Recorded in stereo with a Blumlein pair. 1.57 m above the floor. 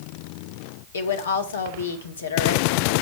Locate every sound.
0.9 s a woman speaking: 70° left, 1.7 m